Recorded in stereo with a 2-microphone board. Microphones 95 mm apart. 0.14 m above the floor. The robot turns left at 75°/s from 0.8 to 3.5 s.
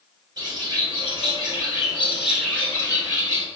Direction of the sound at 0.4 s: 65° right.